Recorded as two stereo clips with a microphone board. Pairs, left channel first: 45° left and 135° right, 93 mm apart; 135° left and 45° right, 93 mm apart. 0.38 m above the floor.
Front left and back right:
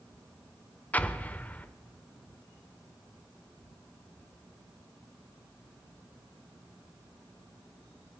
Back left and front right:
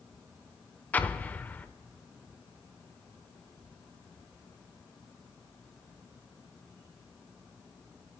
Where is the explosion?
90° left, 0.6 m.